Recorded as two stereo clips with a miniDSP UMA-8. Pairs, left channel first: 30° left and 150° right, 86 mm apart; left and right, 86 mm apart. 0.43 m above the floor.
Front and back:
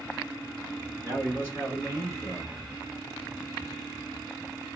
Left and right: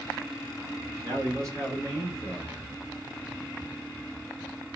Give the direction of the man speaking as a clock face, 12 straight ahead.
3 o'clock.